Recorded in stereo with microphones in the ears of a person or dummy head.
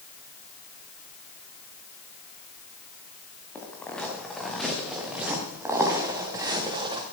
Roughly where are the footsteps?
Centre.